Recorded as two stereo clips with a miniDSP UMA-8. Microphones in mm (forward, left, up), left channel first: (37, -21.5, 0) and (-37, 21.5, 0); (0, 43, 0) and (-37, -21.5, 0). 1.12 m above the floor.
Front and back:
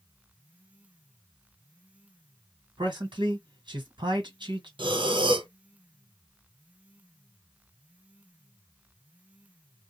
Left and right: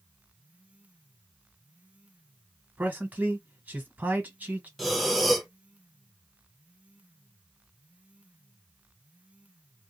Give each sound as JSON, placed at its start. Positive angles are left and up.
{"t": 2.8, "sound": "a man speaking", "azimuth_deg": 170, "distance_m": 1.4}
{"t": 4.8, "sound": "breathing", "azimuth_deg": 150, "distance_m": 0.5}